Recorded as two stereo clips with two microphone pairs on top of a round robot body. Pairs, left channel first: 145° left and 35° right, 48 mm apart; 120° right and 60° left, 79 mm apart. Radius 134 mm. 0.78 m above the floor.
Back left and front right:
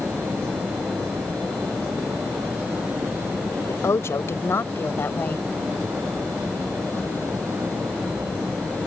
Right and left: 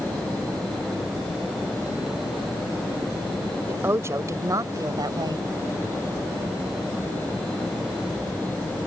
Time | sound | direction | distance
3.7 | a woman speaking | 125° left | ?